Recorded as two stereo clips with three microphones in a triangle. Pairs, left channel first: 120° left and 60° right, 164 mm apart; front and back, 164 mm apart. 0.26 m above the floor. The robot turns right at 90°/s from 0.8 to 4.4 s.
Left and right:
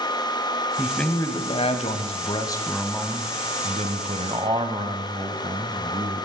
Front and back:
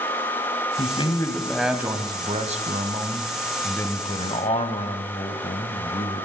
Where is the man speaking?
20° left, 1.5 m; by 6.3 s 15° right, 1.5 m.